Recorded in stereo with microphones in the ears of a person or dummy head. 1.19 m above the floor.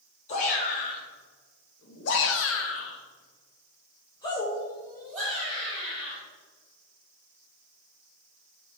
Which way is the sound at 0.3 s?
45° left (ahead or behind).